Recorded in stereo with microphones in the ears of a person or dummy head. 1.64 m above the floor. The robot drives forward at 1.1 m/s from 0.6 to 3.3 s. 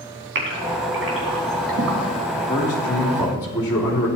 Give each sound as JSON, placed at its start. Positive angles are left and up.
{"t": 0.3, "sound": "a gasp", "side_deg": -65, "distance_m": 4.5}
{"t": 2.3, "sound": "a man speaking", "side_deg": 20, "distance_m": 2.5}